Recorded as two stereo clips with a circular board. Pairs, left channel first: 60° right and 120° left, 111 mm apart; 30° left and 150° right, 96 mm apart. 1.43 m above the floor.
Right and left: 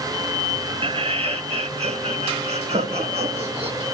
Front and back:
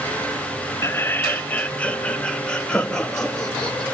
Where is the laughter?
90° left, 0.6 m; by 3.8 s 115° left, 3 m.